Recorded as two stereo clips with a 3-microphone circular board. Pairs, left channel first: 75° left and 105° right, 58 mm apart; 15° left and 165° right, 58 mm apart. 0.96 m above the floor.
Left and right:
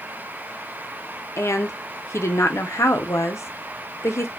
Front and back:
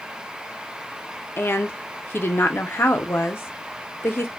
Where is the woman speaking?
55° left, 0.5 m.